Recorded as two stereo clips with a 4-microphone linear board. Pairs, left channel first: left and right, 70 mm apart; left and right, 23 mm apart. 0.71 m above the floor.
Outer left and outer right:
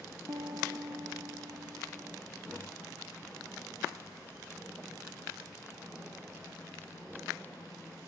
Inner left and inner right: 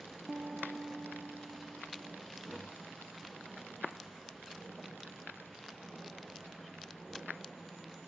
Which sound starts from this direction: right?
A piano, at 0.3 s.